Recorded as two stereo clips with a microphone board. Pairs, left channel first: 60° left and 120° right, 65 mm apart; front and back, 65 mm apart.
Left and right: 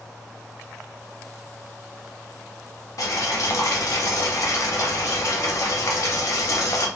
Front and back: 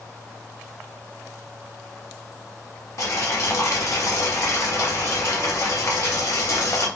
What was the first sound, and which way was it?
Boiling, 35° left.